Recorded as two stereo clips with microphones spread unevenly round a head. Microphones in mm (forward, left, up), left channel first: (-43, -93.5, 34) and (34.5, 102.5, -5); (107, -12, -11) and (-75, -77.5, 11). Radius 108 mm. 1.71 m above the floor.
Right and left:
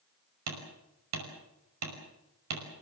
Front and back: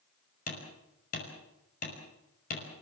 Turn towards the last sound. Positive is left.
turn(degrees=80)